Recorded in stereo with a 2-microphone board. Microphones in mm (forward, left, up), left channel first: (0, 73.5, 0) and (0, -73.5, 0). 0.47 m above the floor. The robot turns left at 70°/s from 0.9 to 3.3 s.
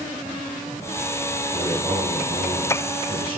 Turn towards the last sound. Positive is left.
turn(degrees=-130)